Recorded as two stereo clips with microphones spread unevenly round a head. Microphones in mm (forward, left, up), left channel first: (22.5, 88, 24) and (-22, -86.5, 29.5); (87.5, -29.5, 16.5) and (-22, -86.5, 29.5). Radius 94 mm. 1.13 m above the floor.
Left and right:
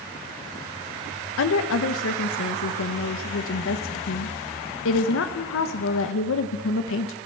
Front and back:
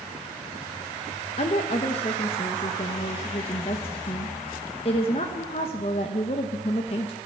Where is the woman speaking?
80° left, 0.9 m.